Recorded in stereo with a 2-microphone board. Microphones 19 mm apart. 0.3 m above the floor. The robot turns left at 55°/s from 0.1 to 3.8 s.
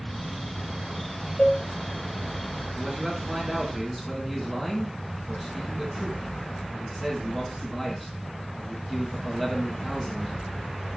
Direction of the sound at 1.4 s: 65° left (ahead or behind).